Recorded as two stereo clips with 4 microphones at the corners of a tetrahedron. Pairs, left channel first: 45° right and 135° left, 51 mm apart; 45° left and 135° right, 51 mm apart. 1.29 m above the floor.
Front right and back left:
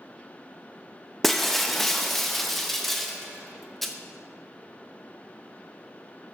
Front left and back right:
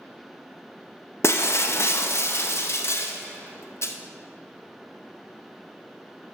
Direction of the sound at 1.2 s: 40° left.